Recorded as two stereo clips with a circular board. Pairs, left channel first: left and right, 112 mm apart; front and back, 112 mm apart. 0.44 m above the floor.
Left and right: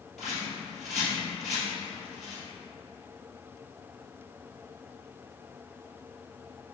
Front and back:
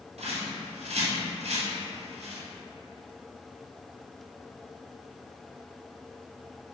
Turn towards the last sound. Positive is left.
turn(degrees=-175)